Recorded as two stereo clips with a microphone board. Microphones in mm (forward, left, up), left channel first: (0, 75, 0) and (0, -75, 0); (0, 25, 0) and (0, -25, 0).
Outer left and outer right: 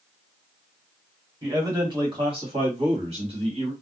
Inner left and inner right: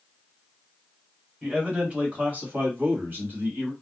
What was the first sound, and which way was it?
A man speaking, 25° right (ahead or behind).